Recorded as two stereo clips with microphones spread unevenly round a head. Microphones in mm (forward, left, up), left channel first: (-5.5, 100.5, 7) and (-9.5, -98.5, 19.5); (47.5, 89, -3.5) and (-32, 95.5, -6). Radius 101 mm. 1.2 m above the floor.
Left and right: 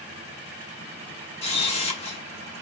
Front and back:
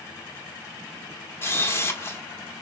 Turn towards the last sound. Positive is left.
turn(degrees=35)